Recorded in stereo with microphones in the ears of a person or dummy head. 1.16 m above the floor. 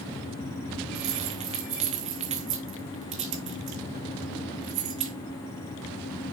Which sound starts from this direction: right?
Keys jangling, at 0.9 s.